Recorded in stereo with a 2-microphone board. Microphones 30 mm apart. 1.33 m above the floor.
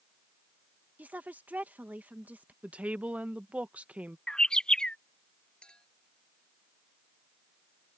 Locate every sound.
1.0 s a woman speaking: 75° right (ahead or behind)
2.6 s a woman speaking: 55° right (ahead or behind)
4.3 s a bird: 25° left (ahead or behind)
5.6 s a clink: 35° left (ahead or behind)